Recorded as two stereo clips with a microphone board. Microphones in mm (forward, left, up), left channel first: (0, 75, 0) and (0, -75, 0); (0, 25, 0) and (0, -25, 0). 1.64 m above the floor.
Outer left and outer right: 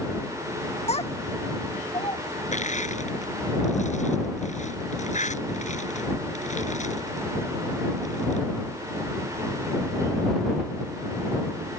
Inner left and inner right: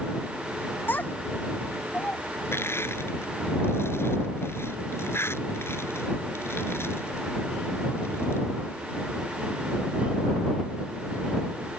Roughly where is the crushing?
Left.